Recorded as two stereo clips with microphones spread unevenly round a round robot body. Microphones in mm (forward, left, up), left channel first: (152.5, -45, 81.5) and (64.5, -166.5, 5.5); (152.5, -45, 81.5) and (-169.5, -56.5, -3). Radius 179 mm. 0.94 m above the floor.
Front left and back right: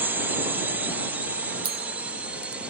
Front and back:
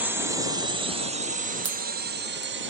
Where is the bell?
120° right.